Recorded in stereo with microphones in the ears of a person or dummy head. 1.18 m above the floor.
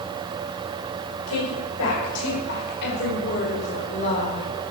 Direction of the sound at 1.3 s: 80° left.